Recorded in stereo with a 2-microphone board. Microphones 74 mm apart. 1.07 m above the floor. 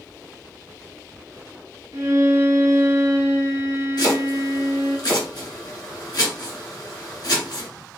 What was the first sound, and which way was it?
A violin, 40° right (ahead or behind).